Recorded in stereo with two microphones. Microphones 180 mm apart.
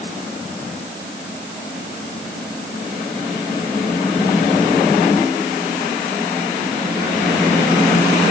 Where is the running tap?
No running tap in this recording.